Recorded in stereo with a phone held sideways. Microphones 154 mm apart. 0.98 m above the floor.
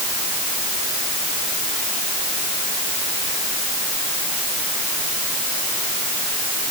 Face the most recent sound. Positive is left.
No sound to turn to.